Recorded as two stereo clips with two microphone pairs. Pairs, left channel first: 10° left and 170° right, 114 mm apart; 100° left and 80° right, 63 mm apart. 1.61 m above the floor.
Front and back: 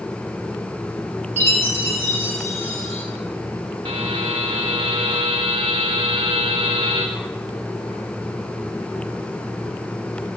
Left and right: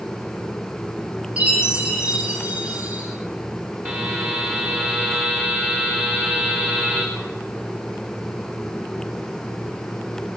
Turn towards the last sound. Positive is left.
turn(degrees=-135)